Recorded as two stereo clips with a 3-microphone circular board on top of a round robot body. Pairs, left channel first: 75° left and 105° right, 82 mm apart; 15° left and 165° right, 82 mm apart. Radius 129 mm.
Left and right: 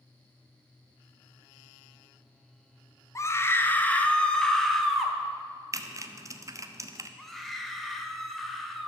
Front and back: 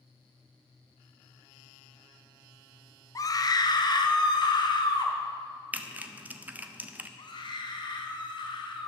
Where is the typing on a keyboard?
105° right, 1.2 m.